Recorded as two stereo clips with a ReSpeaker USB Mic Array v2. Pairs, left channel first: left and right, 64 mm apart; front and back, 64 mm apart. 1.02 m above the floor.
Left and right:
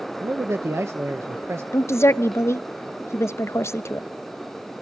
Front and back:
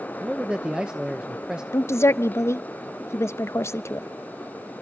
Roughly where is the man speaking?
Right.